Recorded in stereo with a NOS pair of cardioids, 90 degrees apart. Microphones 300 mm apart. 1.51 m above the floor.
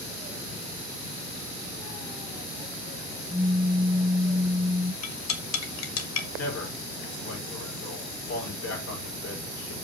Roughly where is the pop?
Ahead.